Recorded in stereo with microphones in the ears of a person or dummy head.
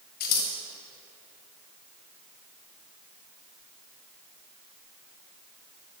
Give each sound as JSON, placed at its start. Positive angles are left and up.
{"t": 0.2, "sound": "scissors", "side_deg": 50, "distance_m": 1.5}